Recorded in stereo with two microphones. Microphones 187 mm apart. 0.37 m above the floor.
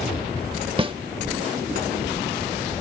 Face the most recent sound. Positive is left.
turn(degrees=-30)  # may be behind; listen again after turning